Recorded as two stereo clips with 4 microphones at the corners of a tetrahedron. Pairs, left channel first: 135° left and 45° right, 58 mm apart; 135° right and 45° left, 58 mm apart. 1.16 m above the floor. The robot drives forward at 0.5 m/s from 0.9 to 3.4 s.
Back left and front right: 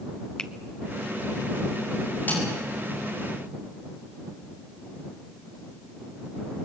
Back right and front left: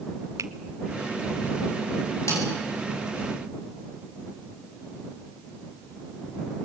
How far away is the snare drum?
About 9.5 m.